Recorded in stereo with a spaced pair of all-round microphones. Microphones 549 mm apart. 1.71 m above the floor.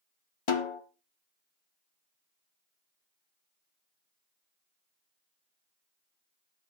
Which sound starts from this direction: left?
A snare drum, at 0.5 s.